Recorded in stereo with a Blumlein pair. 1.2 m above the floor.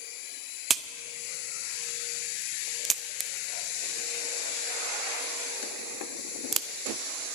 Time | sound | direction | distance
0.7 | a crack | 20° right | 0.6 m